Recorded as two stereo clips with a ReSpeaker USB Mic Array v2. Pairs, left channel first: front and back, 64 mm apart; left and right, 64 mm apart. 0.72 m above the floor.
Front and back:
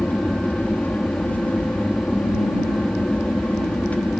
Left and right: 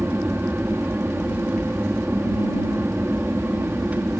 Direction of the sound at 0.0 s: 45° right.